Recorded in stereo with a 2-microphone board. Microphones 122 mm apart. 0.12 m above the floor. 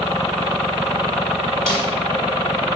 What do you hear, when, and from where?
1.7 s a snare drum: 5° left (ahead or behind), 1.9 m